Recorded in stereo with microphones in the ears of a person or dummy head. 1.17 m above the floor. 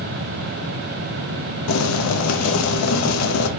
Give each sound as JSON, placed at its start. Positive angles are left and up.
{"t": 1.7, "sound": "boiling", "side_deg": 90, "distance_m": 0.6}